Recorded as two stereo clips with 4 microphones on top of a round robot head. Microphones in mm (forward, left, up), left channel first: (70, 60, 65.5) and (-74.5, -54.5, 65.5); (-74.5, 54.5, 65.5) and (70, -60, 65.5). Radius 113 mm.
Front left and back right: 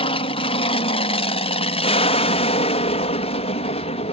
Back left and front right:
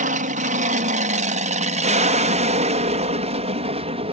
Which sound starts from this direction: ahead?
An aircraft, at 0.0 s.